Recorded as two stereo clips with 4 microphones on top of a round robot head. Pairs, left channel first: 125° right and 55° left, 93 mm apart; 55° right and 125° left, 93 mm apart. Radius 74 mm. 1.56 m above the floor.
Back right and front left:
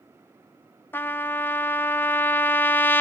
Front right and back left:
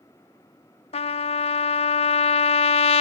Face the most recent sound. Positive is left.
turn(degrees=-55)